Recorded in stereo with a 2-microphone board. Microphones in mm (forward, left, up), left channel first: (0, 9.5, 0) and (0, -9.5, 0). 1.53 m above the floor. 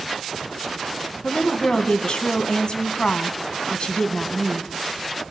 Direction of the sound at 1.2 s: 55° left (ahead or behind).